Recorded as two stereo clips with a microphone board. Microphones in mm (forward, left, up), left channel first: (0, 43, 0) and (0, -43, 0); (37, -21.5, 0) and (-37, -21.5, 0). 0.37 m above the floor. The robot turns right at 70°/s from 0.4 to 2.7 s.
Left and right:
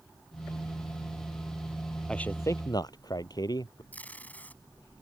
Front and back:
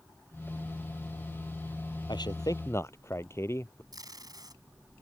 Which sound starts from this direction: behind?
Tape being pulled, at 3.9 s.